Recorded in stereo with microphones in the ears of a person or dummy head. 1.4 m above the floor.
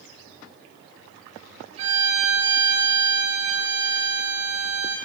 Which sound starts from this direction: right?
A violin, at 1.8 s.